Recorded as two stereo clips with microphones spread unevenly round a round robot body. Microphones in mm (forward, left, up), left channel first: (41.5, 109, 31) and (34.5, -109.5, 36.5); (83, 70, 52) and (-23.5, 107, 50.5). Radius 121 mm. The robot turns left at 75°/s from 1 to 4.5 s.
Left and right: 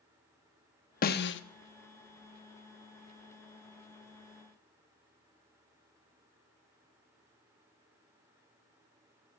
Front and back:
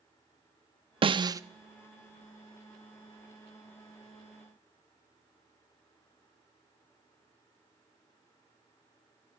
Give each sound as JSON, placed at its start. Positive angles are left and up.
{"t": 1.0, "sound": "a snare drum", "azimuth_deg": 130, "distance_m": 0.7}